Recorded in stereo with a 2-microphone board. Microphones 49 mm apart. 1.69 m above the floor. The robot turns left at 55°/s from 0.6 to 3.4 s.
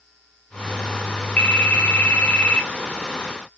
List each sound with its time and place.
1.4 s a phone ringing: 25° left (ahead or behind), 0.7 m; by 2.7 s 20° left (ahead or behind), 0.7 m